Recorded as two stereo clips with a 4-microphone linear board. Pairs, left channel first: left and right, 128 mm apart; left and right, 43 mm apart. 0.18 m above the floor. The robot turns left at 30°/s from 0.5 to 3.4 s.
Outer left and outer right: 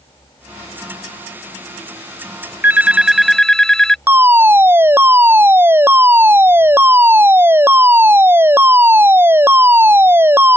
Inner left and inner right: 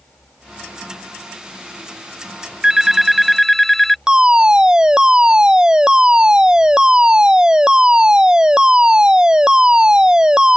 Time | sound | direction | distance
2.6 | a phone ringing | 15° right (ahead or behind) | ?
4.1 | a fire alarm | 20° right (ahead or behind) | ?